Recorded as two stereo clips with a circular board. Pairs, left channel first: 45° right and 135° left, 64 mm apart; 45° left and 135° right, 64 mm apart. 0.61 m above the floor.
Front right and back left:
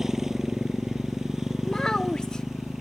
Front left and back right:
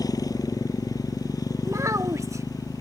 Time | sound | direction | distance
0.0 | a motorcycle | 50° left | ?
1.6 | a child speaking | 120° right | ?